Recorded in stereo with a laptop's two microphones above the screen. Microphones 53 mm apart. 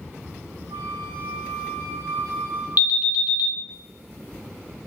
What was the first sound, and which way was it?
A flute, 70° right (ahead or behind).